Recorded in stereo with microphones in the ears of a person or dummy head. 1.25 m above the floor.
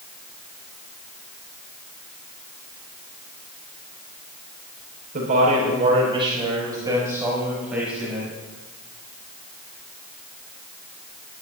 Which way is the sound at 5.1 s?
50° right (ahead or behind).